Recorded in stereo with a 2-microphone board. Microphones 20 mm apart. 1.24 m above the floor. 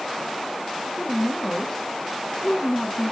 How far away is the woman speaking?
About 1.7 m.